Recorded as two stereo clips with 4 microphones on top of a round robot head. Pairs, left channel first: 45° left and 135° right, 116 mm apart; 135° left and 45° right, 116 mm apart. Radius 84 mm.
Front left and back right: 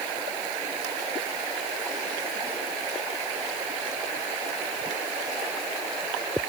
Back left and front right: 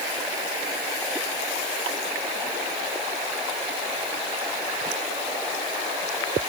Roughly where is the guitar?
I don't hear a guitar.